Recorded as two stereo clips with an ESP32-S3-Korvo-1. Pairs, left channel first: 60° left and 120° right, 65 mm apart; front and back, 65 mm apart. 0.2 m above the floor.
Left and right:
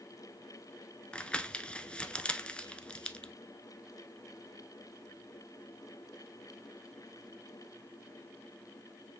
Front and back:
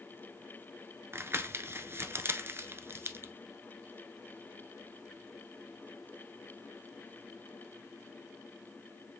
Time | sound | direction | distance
1.1 | crumpling | 135° left | 0.8 m